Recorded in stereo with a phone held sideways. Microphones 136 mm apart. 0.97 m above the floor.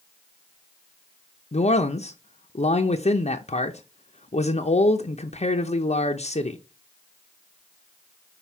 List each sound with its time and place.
1.5 s a man speaking: 55° left (ahead or behind), 0.6 m